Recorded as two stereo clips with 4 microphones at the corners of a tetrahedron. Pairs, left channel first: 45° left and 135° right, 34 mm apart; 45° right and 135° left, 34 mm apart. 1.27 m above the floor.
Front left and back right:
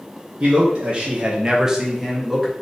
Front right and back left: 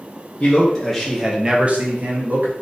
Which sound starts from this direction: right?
A man speaking, at 0.4 s.